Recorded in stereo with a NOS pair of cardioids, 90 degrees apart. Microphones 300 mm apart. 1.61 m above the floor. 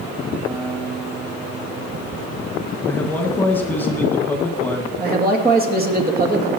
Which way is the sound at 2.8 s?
5° left.